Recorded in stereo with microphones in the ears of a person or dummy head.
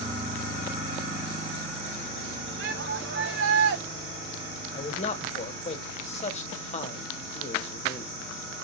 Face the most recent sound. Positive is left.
turn(degrees=35)  # may be behind; listen again after turning